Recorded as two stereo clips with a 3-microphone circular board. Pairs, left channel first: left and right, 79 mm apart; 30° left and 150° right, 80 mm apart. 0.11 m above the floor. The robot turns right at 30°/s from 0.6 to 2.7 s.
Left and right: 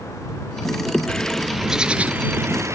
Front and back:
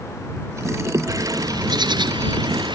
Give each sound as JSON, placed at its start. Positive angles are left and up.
{"t": 1.1, "sound": "a bird", "azimuth_deg": 170}